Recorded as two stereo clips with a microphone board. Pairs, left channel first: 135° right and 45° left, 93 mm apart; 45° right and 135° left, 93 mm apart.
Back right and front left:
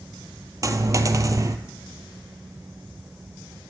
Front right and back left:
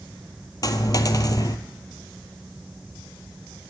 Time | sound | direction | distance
0.6 | a dropped coin | 5° right | 0.5 m